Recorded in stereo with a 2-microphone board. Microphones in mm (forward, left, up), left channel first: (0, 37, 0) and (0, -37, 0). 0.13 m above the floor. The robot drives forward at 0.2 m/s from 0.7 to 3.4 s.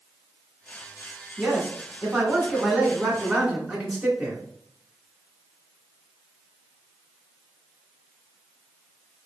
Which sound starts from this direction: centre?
A man speaking, at 1.4 s.